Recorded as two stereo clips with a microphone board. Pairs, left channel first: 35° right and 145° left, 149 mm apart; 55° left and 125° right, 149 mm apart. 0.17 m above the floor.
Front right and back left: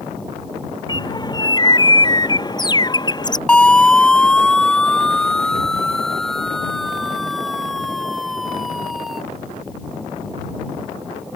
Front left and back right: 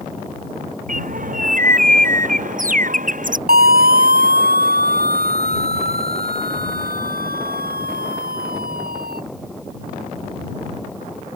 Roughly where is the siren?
Behind right.